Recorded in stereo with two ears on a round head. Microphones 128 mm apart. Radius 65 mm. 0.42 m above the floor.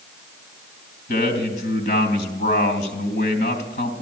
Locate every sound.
1.1 s a man speaking: 55° left (ahead or behind), 3 m